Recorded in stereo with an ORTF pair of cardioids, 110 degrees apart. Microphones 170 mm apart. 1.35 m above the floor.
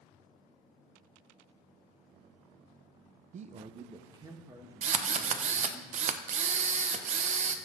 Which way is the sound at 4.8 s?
45° right.